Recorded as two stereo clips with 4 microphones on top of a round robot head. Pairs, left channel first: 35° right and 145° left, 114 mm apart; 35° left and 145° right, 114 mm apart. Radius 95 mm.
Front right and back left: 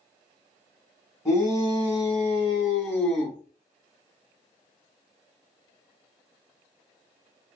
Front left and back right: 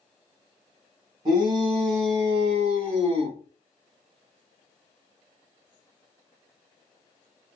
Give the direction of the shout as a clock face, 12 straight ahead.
3 o'clock.